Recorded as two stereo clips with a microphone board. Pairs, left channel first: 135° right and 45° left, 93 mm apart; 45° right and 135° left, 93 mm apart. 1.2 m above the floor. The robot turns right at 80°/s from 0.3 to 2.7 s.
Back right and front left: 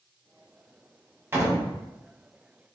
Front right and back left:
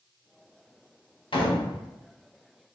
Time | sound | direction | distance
1.3 | a door slam | 20° right | 0.9 m